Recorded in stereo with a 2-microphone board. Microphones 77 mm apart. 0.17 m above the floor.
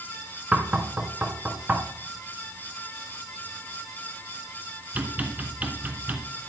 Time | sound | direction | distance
0.5 | knocking | 20° right (ahead or behind) | 1.3 m